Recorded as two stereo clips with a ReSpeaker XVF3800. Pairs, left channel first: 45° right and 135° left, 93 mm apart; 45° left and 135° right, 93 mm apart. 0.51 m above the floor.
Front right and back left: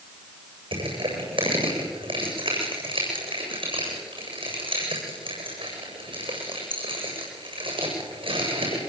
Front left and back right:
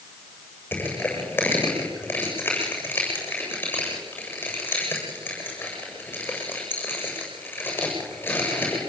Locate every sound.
0.7 s crushing: 115° left, 8 m